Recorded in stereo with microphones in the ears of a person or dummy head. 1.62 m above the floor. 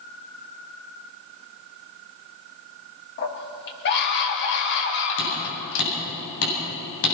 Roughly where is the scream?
Left.